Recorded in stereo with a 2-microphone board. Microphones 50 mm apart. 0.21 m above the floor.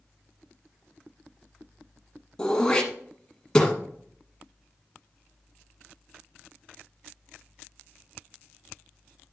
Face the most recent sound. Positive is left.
turn(degrees=15)  # may be behind; listen again after turning